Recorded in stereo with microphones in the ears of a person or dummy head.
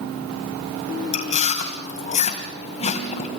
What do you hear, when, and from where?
1.1 s chewing: 30° left (ahead or behind), 2.5 m